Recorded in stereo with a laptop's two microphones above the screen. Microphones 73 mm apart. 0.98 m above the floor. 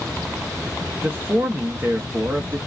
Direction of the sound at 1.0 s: 30° right (ahead or behind).